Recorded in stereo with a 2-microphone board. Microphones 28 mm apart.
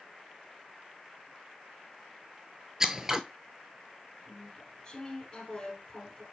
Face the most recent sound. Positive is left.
turn(degrees=25)  # may be behind; listen again after turning